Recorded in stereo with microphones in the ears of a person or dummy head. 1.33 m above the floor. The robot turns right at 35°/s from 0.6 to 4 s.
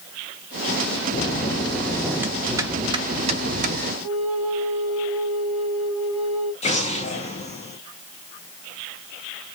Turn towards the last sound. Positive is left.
turn(degrees=35)  # may be behind; listen again after turning